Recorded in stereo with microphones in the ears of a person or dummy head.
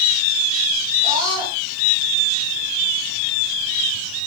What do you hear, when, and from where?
1.0 s a scream: 20° right (ahead or behind), 10 m